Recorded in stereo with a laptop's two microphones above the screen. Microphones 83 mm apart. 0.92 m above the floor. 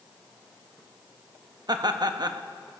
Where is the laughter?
55° right (ahead or behind), 0.8 m.